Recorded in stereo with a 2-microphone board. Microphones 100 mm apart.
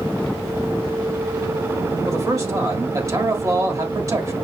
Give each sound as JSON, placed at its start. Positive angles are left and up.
{"t": 2.0, "sound": "a man speaking", "side_deg": -35, "distance_m": 1.6}